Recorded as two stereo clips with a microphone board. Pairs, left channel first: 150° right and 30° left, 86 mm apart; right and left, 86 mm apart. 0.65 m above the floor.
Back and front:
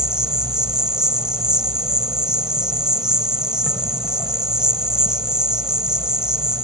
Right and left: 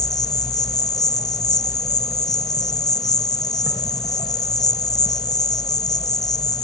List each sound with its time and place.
0.0 s an insect: 50° right